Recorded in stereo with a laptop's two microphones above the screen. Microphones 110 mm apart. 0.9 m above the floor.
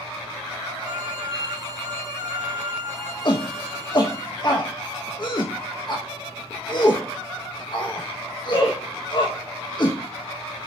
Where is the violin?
40° right (ahead or behind), 1.8 m.